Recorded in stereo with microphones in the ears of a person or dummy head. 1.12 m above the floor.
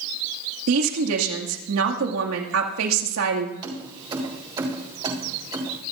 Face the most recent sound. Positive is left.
turn(degrees=-25)  # may be behind; listen again after turning